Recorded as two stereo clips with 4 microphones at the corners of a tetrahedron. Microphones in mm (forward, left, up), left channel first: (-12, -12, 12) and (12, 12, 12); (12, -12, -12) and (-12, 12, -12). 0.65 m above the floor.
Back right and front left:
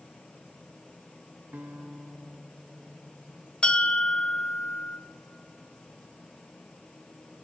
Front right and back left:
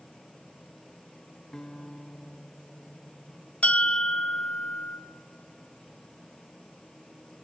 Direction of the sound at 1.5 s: 30° left.